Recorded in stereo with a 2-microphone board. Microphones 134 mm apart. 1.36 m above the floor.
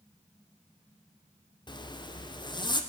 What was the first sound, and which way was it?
A zipper, 35° left (ahead or behind).